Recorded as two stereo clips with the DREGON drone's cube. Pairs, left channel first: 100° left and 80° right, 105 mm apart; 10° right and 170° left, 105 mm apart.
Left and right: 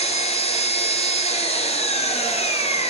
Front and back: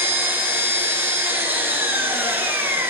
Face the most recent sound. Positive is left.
turn(degrees=100)